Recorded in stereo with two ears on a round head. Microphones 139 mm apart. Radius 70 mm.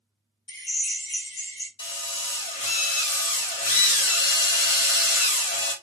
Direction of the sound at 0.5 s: 30° left (ahead or behind).